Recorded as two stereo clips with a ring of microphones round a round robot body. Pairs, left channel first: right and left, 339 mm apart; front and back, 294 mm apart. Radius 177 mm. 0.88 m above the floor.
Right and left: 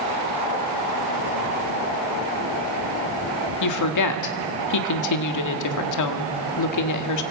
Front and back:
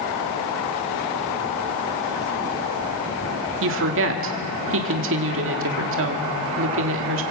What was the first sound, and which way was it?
A woman speaking, 125° right.